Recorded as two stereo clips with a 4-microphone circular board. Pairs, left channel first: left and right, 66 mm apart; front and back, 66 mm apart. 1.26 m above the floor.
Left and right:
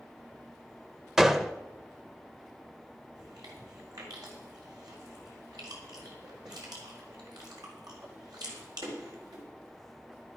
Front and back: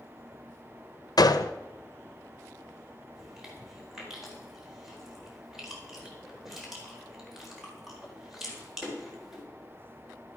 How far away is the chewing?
About 4.5 m.